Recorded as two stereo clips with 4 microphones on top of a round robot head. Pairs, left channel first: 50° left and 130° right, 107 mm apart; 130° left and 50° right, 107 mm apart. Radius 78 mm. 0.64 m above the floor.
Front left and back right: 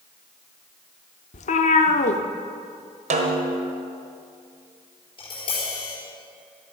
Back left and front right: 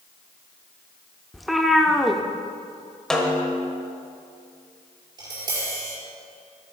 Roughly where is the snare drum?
Behind right.